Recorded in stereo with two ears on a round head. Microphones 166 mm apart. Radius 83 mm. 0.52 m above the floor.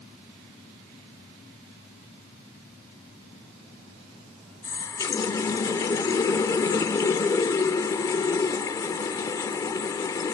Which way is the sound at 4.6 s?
20° left (ahead or behind).